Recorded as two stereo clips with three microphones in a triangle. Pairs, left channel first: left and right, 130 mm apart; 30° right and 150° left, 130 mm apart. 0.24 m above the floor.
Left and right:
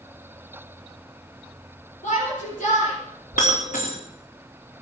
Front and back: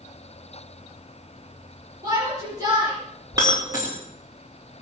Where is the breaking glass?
85° left, 4.5 m.